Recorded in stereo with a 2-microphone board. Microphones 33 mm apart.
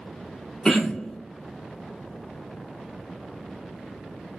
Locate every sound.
0.7 s throat clearing: 20° left (ahead or behind), 1.0 m